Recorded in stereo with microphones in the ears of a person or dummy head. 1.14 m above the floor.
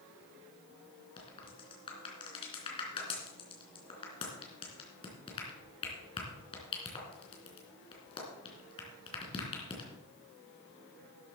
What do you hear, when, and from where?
1.2 s a crack: 30° left (ahead or behind), 3 m